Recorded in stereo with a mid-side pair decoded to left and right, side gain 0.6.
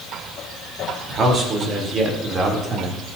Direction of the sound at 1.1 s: 40° right.